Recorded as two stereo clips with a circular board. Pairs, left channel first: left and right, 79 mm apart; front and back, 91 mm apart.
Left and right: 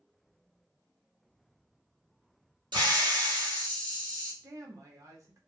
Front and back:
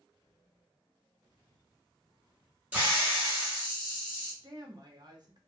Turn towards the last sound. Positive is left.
turn(degrees=-135)